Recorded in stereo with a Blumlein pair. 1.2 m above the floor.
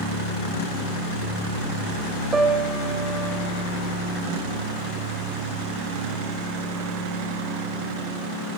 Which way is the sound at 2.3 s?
15° right.